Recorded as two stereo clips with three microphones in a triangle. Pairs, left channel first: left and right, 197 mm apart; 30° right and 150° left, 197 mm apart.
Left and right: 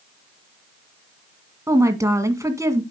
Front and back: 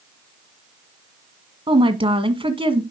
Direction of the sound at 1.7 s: 155° right.